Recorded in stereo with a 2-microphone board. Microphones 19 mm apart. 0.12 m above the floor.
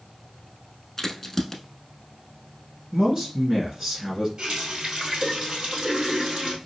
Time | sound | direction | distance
1.0 | a crack | 15° left (ahead or behind) | 0.6 m
2.9 | a man speaking | 30° right (ahead or behind) | 1.7 m
4.4 | a running tap | 55° right (ahead or behind) | 1.8 m